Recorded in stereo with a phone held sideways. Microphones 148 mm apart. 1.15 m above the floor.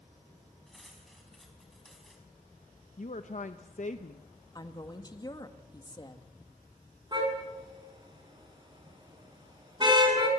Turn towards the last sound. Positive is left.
turn(degrees=-30)  # may be behind; listen again after turning